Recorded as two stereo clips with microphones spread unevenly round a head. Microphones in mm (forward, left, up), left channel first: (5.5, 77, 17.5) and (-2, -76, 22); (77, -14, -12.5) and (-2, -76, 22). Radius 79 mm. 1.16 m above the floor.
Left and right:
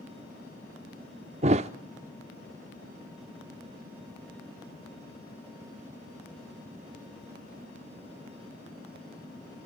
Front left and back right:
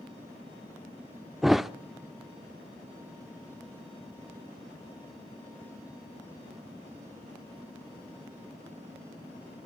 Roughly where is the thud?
Right.